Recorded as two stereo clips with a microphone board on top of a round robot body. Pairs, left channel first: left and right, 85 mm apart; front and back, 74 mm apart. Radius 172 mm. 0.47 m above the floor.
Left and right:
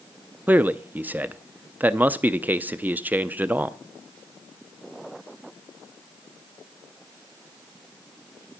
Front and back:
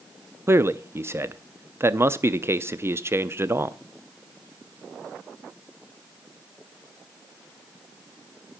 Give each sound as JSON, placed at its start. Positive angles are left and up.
{"t": 0.5, "sound": "a man speaking", "azimuth_deg": -145, "distance_m": 0.8}